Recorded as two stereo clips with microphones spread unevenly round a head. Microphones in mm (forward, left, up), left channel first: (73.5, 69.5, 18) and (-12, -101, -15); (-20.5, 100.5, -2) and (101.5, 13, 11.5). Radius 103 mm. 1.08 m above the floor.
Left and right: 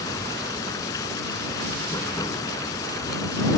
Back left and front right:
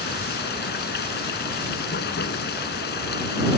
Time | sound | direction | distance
0.0 | running water | 140° left | ?